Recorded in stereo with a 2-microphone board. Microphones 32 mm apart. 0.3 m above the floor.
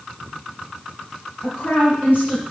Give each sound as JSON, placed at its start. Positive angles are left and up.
{"t": 1.4, "sound": "a woman speaking", "side_deg": 55, "distance_m": 5.0}